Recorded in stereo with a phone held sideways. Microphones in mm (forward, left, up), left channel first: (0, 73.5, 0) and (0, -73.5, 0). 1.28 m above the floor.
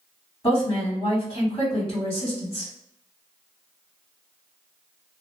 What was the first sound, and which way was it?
A woman speaking, 30° left (ahead or behind).